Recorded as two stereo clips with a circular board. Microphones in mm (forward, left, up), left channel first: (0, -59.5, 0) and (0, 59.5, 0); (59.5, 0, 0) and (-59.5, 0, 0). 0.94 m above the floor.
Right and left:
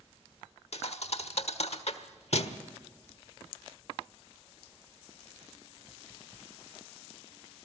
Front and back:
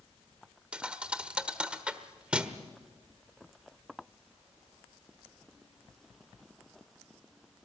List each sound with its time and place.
0.7 s a thud: 100° right, 1.1 m